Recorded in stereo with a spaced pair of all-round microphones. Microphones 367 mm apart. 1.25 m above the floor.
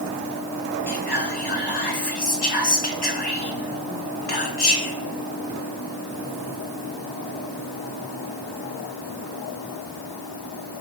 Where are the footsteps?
No footsteps in this recording.